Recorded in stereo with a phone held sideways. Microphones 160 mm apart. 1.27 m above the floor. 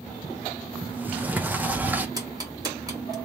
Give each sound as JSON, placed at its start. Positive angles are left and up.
{"t": 0.8, "sound": "a sliding door", "side_deg": -10, "distance_m": 0.8}
{"t": 2.2, "sound": "ticking", "side_deg": -25, "distance_m": 2.0}